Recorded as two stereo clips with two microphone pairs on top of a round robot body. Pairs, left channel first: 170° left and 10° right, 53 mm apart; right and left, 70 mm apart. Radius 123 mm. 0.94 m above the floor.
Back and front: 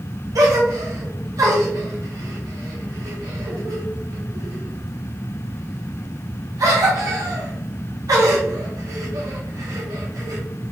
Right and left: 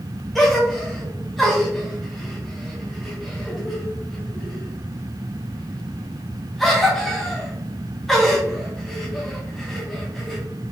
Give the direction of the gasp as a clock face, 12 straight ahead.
12 o'clock.